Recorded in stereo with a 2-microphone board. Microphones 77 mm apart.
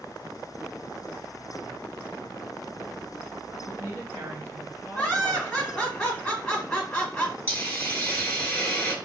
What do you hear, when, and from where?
3.6 s a woman speaking: 30° right (ahead or behind), 3 m
5.0 s laughter: 10° left (ahead or behind), 1.8 m
7.5 s a hiss: 20° left (ahead or behind), 1.1 m